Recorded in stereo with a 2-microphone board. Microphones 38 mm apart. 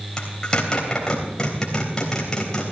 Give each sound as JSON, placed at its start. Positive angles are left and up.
{"t": 0.2, "sound": "a zipper", "side_deg": 15, "distance_m": 3.5}